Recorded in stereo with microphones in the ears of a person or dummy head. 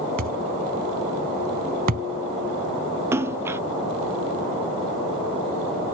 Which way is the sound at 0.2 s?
45° right (ahead or behind).